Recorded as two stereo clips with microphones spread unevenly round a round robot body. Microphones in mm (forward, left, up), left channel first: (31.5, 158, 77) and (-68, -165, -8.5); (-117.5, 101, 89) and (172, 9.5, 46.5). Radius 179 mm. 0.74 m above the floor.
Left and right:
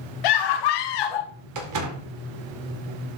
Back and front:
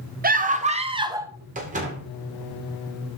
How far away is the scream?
About 1.8 m.